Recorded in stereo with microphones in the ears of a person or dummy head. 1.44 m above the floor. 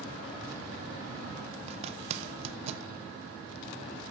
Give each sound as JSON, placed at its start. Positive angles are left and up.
{"t": 1.7, "sound": "a zipper", "side_deg": -40, "distance_m": 0.6}